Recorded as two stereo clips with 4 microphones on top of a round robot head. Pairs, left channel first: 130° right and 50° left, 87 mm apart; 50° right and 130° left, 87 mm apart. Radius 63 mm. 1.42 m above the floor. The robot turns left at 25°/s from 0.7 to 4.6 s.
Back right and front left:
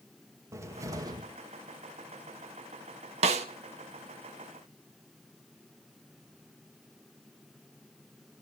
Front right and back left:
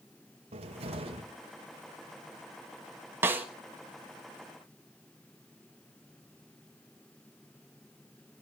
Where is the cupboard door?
110° left, 1.9 m; by 1.2 s 95° left, 1.9 m.